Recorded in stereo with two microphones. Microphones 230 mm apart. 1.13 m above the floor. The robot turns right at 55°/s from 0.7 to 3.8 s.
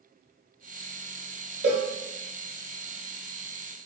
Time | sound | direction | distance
1.6 | a cowbell | 50° right (ahead or behind) | 1.3 m